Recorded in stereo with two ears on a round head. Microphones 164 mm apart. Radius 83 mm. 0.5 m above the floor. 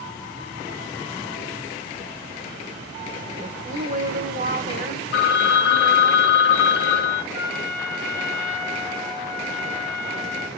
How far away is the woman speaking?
About 1.6 m.